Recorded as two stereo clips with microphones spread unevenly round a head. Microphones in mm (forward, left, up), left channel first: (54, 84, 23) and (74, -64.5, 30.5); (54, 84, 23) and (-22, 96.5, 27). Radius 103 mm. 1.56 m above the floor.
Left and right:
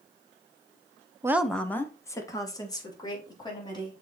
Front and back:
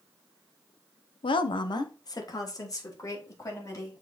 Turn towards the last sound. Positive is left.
turn(degrees=35)